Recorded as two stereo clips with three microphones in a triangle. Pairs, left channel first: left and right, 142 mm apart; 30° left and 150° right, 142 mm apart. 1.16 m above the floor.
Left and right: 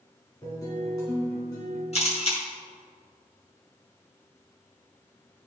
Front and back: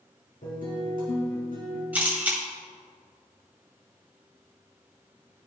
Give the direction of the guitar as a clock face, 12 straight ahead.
11 o'clock.